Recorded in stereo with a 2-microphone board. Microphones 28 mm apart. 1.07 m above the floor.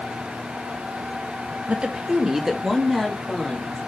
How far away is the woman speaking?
About 1.3 m.